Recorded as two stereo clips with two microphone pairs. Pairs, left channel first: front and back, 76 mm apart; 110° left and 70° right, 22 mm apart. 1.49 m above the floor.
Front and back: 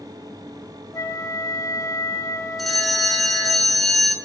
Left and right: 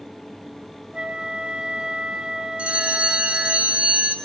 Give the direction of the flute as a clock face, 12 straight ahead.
1 o'clock.